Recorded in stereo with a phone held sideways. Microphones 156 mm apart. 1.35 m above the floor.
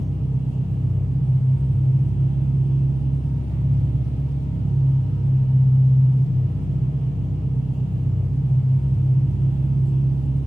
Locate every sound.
0.0 s an engine running: 25° left (ahead or behind), 0.9 m